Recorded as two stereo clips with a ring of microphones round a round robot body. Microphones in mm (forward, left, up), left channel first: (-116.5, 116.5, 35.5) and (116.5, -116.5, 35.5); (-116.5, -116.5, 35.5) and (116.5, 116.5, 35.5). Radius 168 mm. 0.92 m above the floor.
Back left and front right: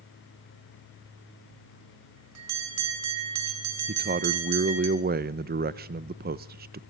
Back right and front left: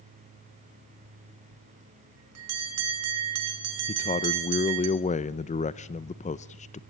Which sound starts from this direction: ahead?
A bell, at 1.5 s.